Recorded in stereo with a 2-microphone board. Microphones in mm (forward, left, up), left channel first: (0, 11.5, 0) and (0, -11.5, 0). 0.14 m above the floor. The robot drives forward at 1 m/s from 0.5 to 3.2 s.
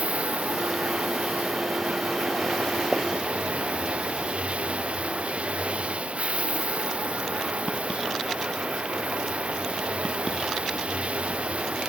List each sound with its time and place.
0.0 s running water: 80° right; by 11.9 s 70° right (ahead or behind)
2.9 s a pop: 25° right (ahead or behind); by 3.0 s 30° right (ahead or behind)